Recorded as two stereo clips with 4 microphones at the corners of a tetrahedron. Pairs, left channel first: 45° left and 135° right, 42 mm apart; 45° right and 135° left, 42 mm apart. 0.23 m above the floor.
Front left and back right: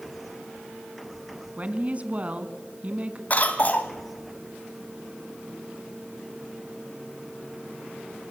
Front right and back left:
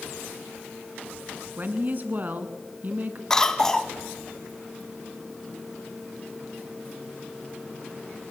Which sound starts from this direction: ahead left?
A cough, at 3.3 s.